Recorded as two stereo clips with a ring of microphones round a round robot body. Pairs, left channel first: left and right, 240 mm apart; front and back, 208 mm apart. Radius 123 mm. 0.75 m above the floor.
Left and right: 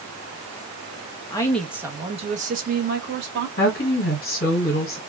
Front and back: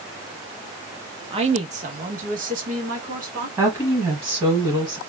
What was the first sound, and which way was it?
A woman speaking, 145° left.